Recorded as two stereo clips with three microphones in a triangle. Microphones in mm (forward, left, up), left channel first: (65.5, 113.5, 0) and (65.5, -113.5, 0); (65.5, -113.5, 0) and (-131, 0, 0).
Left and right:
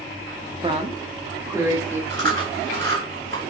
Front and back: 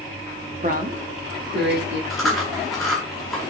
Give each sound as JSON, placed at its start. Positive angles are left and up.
{"t": 0.6, "sound": "a woman speaking", "azimuth_deg": -150, "distance_m": 1.6}
{"t": 2.1, "sound": "chewing", "azimuth_deg": -120, "distance_m": 5.0}